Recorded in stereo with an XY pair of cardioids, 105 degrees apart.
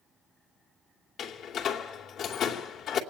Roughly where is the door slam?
Left.